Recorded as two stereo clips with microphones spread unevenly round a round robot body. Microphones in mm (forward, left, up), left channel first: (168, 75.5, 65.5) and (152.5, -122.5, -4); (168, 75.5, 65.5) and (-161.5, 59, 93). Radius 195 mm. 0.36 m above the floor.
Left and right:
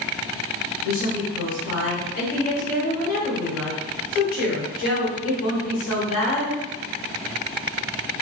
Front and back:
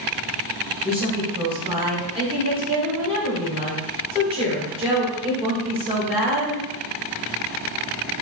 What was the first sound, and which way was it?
A woman speaking, 110° left.